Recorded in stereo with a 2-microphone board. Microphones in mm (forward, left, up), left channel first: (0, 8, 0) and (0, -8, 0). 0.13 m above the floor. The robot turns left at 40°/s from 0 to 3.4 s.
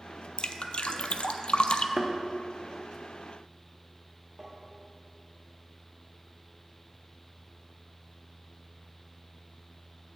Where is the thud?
15° right (ahead or behind), 1.4 m; by 2.1 s 5° right (ahead or behind), 1.4 m.